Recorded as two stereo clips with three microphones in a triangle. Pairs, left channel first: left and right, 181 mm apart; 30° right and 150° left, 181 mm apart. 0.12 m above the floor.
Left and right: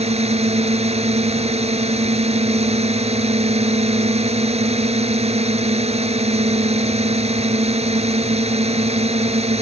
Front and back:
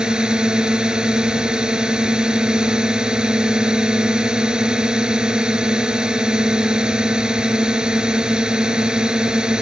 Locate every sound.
0.0 s a drone: 125° right